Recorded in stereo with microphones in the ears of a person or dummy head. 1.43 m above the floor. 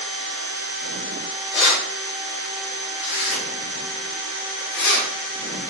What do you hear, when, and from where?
1.5 s keys jangling: 65° left (ahead or behind), 1.1 m